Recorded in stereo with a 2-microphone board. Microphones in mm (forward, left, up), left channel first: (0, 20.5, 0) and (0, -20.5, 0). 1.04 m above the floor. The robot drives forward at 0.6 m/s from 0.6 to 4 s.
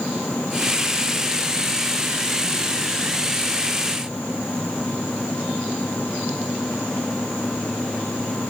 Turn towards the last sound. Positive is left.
No sound to turn to.